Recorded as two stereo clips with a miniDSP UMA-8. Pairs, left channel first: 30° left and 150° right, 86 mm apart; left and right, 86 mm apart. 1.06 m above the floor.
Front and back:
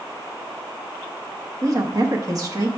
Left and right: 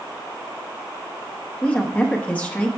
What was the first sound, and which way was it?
A woman speaking, 160° left.